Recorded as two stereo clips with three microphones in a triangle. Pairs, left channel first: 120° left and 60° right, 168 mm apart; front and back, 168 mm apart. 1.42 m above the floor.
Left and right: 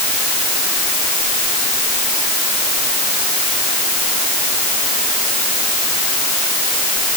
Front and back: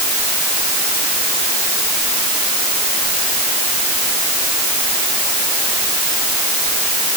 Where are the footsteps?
I don't hear footsteps.